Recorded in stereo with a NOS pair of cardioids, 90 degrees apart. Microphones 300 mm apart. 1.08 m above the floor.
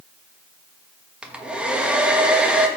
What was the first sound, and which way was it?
A hair dryer, 5° right.